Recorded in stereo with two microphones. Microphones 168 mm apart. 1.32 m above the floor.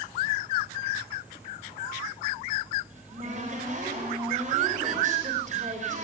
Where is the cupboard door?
45° right (ahead or behind), 3.5 m.